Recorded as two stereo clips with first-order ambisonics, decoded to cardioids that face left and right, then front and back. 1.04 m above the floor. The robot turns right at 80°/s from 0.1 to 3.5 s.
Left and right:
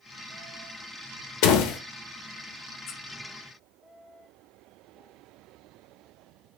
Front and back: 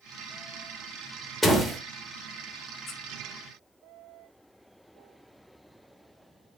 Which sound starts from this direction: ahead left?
A squeak, at 2.9 s.